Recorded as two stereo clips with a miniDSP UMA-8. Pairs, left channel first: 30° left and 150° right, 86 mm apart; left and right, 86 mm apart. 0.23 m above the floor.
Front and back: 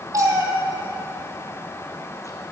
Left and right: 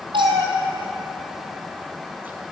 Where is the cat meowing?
100° right, 1.4 m; by 2.4 s 15° right, 1.1 m.